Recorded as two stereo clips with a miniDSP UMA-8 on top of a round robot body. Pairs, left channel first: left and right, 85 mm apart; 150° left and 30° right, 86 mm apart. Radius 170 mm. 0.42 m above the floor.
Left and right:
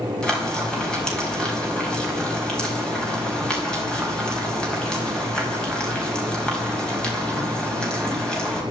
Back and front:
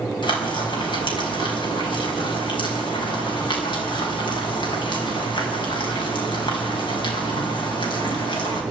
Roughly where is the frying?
Behind.